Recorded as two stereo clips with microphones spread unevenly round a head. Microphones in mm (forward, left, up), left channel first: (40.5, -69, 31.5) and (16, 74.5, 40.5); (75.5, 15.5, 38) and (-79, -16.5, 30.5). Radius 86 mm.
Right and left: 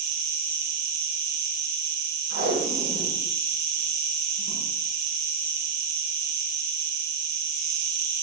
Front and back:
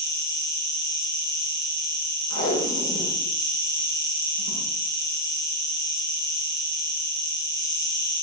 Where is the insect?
75° left, 4.5 m.